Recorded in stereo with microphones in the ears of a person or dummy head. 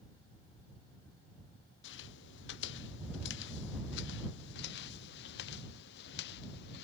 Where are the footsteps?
70° left (ahead or behind); by 6.8 s 65° left (ahead or behind).